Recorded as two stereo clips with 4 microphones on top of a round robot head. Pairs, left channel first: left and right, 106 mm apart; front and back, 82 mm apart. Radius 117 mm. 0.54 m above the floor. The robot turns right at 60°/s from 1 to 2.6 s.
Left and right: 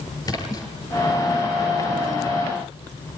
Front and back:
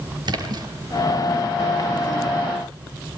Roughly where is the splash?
Behind left.